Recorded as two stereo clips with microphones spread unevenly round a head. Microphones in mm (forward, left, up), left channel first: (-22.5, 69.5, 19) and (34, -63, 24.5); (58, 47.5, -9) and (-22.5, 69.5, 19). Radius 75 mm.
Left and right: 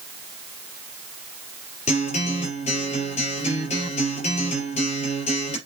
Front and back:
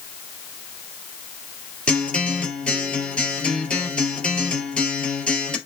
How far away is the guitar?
About 3.5 m.